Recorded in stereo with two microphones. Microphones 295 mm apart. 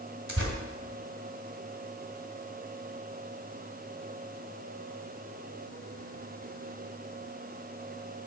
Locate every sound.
0.3 s tearing paper: 45° right (ahead or behind), 2.0 m